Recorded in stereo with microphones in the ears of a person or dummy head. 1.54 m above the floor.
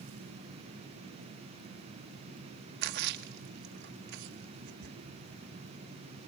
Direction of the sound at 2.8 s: 65° right (ahead or behind).